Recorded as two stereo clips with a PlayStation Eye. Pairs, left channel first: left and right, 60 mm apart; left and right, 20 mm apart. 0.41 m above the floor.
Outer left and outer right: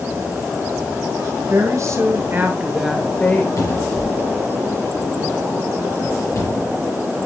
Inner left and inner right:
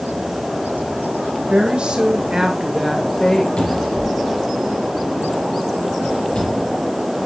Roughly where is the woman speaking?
Right.